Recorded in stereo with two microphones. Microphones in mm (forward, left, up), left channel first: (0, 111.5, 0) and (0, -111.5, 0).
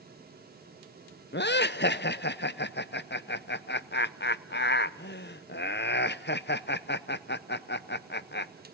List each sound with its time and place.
1.3 s laughter: 50° left (ahead or behind), 0.6 m